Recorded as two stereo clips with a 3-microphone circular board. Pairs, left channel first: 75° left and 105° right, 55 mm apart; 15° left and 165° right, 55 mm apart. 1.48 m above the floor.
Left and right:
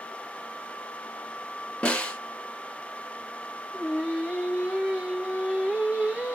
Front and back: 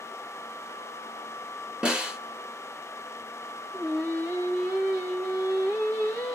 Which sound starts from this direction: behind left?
A snare drum, at 1.8 s.